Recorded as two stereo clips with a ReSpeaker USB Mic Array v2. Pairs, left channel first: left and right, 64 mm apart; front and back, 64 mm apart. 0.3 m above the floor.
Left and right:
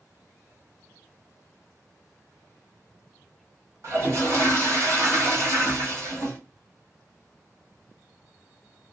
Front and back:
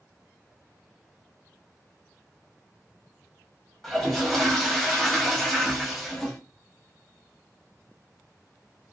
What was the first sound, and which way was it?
A toilet flushing, 80° right.